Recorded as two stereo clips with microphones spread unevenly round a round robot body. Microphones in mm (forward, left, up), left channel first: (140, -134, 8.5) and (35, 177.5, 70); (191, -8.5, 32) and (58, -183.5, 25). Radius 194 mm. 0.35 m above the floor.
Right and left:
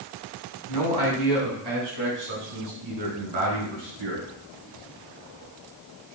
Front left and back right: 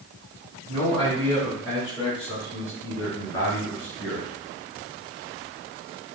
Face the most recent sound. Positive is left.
turn(degrees=135)